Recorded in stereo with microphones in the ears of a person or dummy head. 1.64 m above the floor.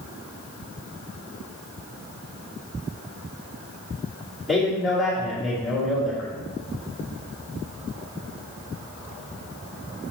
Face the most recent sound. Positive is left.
turn(degrees=-5)  # may be behind; listen again after turning